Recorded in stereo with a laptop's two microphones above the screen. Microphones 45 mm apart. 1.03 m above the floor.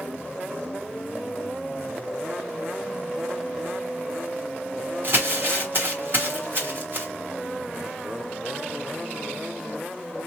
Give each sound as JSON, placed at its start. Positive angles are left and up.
{"t": 5.0, "sound": "crumpling", "side_deg": -50, "distance_m": 1.1}